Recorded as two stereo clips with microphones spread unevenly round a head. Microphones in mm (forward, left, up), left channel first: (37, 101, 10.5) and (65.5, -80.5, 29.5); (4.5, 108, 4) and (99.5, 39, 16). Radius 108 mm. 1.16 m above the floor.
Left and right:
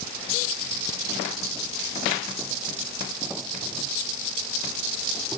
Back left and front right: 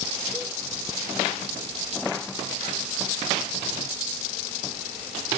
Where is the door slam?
No door slam in this recording.